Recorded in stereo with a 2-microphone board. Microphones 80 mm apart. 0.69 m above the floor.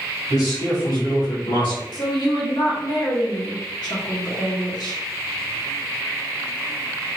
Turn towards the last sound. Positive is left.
turn(degrees=55)  # may be behind; listen again after turning